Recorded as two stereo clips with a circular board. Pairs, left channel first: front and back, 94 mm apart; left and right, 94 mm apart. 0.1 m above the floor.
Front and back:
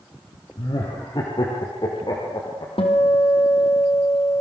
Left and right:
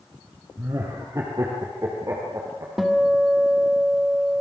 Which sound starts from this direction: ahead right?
Laughter, at 0.6 s.